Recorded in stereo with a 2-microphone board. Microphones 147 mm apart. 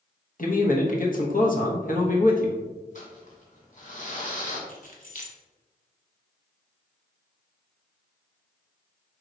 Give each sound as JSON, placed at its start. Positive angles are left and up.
{"t": 0.4, "sound": "a man speaking", "side_deg": 60, "distance_m": 1.0}
{"t": 3.0, "sound": "crumpling", "side_deg": 55, "distance_m": 2.0}
{"t": 4.7, "sound": "keys jangling", "side_deg": 55, "distance_m": 0.9}